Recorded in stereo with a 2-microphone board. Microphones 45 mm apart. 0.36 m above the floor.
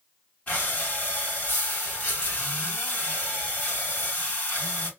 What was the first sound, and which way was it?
Breathing, 40° left (ahead or behind).